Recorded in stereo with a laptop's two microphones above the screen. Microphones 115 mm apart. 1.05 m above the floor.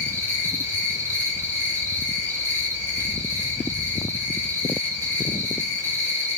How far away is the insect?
About 3 m.